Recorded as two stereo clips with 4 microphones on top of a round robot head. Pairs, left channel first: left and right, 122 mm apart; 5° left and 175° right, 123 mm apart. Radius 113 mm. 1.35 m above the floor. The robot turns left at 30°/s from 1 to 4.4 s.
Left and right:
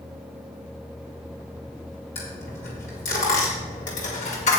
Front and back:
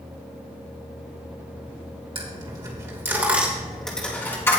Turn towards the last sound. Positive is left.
turn(degrees=75)